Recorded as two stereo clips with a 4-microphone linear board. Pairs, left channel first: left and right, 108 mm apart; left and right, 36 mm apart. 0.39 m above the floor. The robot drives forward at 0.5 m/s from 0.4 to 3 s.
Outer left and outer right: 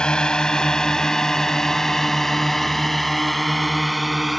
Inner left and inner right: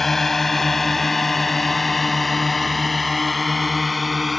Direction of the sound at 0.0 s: 10° left (ahead or behind).